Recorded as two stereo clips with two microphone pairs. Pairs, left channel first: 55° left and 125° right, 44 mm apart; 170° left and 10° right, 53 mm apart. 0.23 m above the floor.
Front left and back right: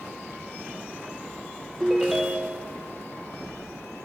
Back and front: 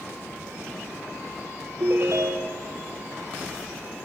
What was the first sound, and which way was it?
A ringtone, 35° right.